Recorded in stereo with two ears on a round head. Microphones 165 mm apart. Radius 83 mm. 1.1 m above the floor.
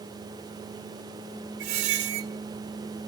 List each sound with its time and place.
1.6 s a squeak: 60° right (ahead or behind), 0.7 m